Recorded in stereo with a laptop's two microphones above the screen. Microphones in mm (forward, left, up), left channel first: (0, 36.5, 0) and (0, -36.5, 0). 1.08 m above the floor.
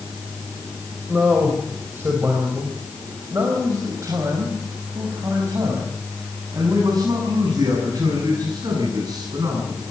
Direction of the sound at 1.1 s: 20° right (ahead or behind).